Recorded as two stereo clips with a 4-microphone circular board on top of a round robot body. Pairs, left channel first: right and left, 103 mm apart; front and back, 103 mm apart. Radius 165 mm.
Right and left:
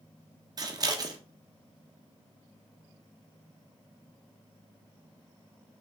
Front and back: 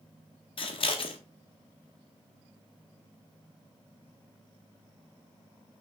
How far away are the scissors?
About 1.1 m.